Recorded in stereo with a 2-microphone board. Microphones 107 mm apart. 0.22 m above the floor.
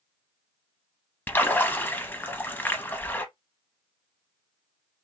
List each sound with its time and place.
1.3 s a splash: 15° left (ahead or behind), 0.6 m